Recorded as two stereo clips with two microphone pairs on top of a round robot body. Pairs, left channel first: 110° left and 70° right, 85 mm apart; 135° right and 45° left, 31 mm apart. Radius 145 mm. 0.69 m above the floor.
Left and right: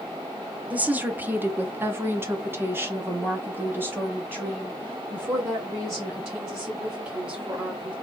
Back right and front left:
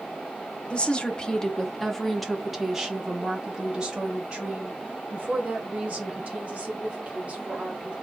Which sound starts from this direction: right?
A woman speaking, at 0.7 s.